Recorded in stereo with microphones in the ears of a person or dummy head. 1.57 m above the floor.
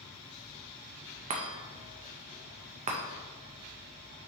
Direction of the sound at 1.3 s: 35° right (ahead or behind).